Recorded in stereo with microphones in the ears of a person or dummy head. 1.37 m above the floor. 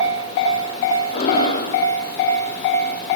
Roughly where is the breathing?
Left.